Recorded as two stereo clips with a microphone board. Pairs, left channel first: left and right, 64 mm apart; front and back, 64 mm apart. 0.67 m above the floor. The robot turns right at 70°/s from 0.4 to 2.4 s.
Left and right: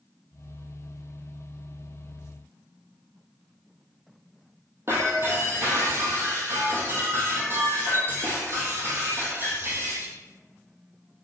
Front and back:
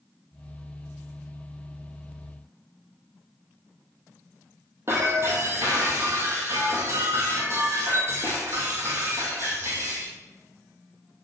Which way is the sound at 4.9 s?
135° right.